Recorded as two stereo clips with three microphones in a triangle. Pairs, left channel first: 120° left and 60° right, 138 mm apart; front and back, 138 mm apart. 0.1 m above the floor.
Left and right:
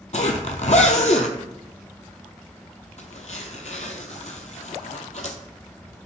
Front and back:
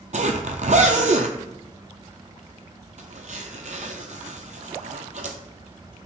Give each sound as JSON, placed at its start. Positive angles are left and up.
{"t": 0.1, "sound": "a zipper", "azimuth_deg": 150, "distance_m": 0.5}